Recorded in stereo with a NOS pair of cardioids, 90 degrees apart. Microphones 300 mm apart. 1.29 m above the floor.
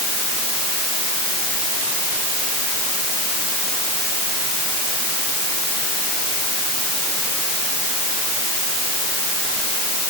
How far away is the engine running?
No engine running in this recording.